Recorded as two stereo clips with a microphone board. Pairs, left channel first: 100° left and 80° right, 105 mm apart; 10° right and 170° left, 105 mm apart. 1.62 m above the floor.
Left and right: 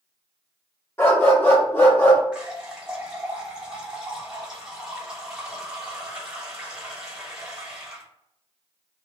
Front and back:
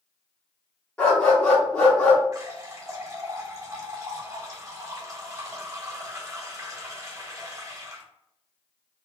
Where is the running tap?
155° right, 1.0 m.